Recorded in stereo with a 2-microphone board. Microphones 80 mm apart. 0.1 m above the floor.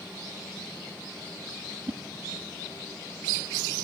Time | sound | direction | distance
1.9 | a whoosh | 50° right (ahead or behind) | 0.7 m